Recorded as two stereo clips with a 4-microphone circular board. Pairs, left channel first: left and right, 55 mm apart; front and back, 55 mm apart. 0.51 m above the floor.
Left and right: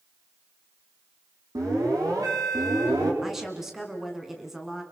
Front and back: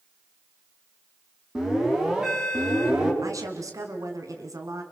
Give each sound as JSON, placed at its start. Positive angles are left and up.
{"t": 1.6, "sound": "an alarm", "azimuth_deg": -100, "distance_m": 6.5}
{"t": 3.2, "sound": "a woman speaking", "azimuth_deg": -175, "distance_m": 4.5}